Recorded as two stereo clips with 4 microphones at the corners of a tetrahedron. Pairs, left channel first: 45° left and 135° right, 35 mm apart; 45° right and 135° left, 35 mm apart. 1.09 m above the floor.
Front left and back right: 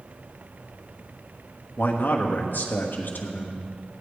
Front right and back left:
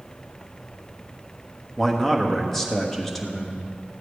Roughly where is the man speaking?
Ahead left.